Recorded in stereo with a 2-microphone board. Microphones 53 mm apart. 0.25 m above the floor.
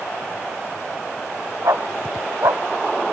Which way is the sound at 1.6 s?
70° right (ahead or behind).